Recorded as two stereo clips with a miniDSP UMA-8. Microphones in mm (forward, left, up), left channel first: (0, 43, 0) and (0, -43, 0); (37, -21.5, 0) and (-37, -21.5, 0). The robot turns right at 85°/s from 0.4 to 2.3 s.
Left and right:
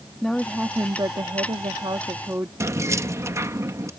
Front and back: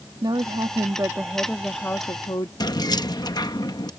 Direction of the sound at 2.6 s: 30° right.